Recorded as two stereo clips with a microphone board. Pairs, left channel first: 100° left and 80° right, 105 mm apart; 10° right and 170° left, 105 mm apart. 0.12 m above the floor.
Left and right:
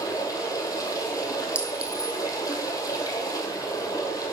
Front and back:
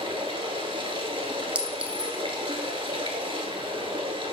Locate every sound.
0.0 s running water: 145° left, 1.0 m
1.6 s a clink: 130° right, 0.6 m